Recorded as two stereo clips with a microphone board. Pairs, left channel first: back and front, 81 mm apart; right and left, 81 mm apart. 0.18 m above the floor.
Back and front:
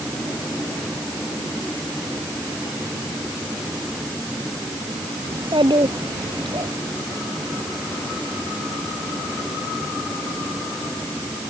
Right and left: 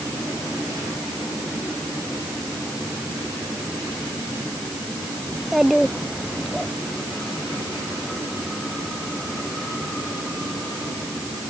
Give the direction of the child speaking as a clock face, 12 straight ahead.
12 o'clock.